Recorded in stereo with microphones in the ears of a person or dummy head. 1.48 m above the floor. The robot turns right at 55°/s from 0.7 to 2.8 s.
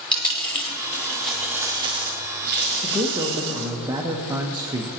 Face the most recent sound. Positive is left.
turn(degrees=-20)  # may be behind; listen again after turning